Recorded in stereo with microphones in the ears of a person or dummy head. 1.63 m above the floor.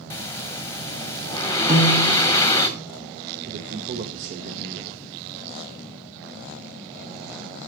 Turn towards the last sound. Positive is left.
turn(degrees=-40)  # may be behind; listen again after turning